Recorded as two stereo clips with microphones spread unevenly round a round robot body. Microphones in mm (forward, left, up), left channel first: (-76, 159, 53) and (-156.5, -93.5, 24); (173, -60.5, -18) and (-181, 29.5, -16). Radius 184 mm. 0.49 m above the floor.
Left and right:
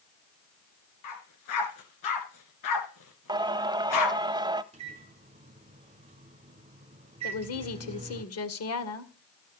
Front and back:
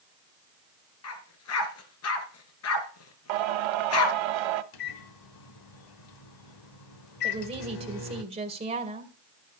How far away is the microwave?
About 1.3 m.